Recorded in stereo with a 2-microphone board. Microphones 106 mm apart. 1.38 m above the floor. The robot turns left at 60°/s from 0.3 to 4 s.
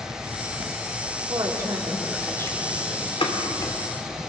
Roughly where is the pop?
Left.